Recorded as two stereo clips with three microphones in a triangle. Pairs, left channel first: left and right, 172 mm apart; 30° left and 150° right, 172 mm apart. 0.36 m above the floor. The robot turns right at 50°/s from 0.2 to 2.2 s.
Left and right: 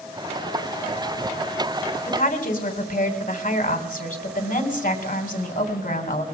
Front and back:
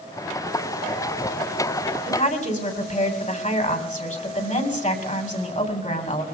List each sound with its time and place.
2.1 s a woman speaking: 55° left, 3 m; by 6.2 s 65° left, 3 m